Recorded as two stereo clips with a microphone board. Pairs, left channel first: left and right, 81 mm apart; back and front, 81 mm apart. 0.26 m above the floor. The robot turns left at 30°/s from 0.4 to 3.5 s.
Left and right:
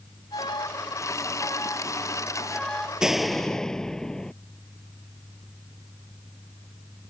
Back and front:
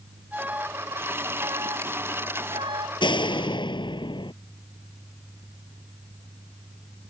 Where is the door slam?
170° right; by 4.3 s 175° left.